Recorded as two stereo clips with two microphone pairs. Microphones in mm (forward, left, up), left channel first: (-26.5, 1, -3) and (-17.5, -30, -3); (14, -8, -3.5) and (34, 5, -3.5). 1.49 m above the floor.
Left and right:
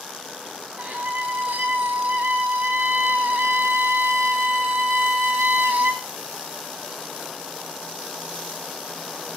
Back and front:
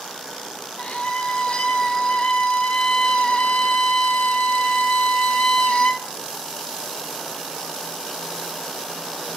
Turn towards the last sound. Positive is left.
turn(degrees=-105)